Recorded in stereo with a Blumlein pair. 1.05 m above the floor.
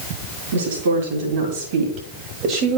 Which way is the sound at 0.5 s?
60° right.